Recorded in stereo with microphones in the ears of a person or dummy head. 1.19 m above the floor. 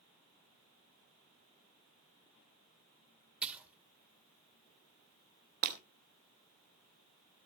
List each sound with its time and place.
3.4 s a splash: 5° right (ahead or behind), 1.6 m
5.6 s breaking glass: 45° right (ahead or behind), 2 m